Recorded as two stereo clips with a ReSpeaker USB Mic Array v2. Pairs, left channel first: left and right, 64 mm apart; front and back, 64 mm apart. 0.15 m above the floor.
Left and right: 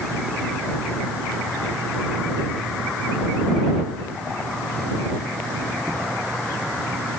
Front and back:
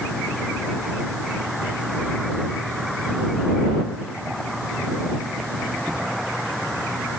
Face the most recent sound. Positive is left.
No sound to turn to.